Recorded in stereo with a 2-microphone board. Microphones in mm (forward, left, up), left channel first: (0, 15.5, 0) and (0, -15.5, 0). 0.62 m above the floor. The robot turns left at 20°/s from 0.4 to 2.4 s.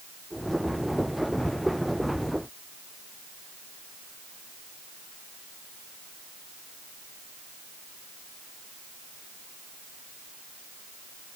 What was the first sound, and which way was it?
Only background noise.